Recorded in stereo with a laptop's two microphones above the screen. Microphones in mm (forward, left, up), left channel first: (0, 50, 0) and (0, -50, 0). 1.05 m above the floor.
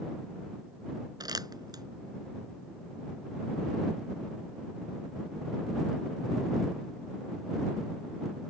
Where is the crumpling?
40° right (ahead or behind).